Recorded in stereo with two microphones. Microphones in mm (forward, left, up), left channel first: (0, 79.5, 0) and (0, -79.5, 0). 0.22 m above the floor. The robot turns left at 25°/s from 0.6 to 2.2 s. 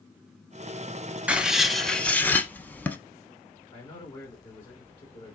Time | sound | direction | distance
1.3 | writing | 10° right (ahead or behind) | 0.6 m
3.7 | a man speaking | 30° left (ahead or behind) | 1.8 m